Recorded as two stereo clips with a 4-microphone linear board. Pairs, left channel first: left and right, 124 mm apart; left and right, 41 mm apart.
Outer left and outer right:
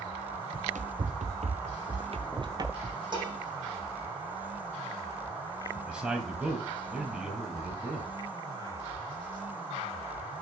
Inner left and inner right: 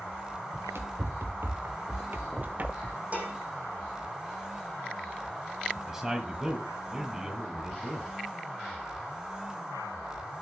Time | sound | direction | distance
0.5 | running footsteps | 80° right | 1.7 m
3.1 | dishes clattering | 40° right (ahead or behind) | 8 m
5.8 | a man speaking | 10° right (ahead or behind) | 1.9 m